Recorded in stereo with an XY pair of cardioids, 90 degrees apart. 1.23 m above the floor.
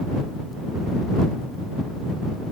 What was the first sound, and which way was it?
Only background noise.